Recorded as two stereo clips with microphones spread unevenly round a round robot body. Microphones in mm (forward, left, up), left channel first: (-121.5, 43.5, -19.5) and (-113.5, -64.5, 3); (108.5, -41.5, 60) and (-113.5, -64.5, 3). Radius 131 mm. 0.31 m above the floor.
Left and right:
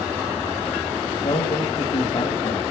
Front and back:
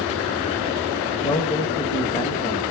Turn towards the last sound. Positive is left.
turn(degrees=85)